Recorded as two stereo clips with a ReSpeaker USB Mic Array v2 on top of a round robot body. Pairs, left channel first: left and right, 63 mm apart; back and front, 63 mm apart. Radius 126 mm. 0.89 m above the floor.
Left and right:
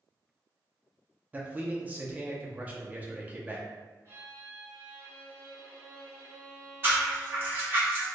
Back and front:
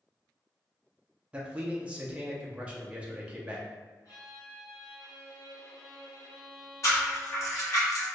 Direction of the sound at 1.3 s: 50° right.